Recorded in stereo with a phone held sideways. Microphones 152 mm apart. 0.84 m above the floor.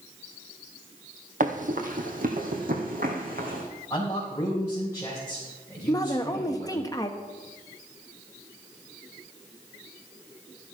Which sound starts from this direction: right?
Running footsteps, at 1.4 s.